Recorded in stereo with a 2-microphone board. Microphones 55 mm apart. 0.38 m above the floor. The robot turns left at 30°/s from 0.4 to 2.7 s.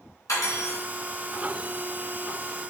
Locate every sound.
0.3 s cutlery clinking: 80° left, 2 m; by 0.8 s 70° left (ahead or behind), 2 m